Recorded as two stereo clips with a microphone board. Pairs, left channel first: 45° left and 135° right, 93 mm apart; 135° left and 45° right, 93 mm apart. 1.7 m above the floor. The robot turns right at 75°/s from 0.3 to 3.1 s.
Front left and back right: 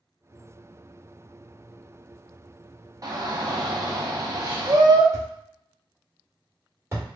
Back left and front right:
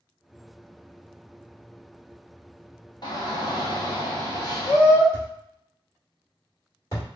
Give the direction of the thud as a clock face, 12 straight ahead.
6 o'clock.